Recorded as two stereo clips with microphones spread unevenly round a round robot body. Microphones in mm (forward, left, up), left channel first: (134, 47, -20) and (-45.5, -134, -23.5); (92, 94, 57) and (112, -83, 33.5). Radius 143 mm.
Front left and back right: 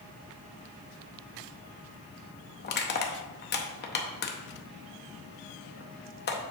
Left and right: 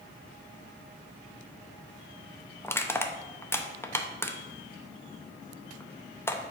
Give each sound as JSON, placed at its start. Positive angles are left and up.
{"t": 2.6, "sound": "crushing", "azimuth_deg": 15, "distance_m": 0.7}